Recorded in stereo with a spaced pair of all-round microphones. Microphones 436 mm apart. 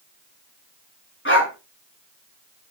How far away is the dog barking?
About 4 m.